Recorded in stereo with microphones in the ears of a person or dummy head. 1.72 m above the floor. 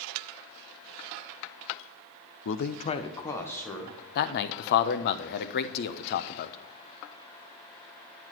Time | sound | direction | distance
2.5 | a man speaking | 75° left (ahead or behind) | 0.7 m
4.2 | a man speaking | 55° left (ahead or behind) | 0.9 m